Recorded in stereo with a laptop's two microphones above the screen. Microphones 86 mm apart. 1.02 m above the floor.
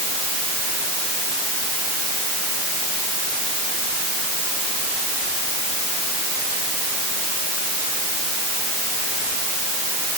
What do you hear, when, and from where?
Only background noise.